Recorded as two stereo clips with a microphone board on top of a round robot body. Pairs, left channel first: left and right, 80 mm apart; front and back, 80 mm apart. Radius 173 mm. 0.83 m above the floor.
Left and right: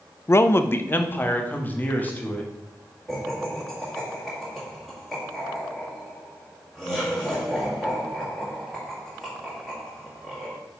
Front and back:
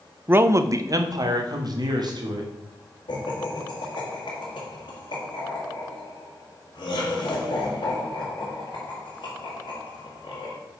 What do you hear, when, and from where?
0.3 s a man speaking: 125° left, 0.5 m; by 2.5 s 160° left, 1.7 m
3.1 s laughter: 5° right, 1.8 m